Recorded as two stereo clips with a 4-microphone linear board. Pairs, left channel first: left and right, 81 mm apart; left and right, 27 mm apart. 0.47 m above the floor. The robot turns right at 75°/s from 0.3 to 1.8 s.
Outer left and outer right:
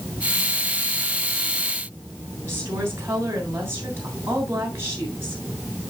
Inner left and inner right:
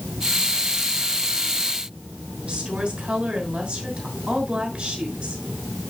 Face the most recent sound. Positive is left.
turn(degrees=-30)  # may be behind; listen again after turning